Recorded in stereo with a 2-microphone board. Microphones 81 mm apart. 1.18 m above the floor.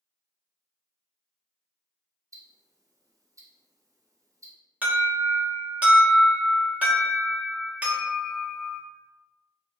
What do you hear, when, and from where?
2.3 s ticking: 40° right (ahead or behind), 0.7 m
4.8 s an alarm: 15° right (ahead or behind), 1.2 m